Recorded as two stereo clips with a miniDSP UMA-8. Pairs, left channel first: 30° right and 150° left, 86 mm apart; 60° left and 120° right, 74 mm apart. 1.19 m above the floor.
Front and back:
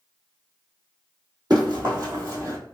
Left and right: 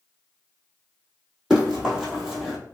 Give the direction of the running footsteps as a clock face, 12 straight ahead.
7 o'clock.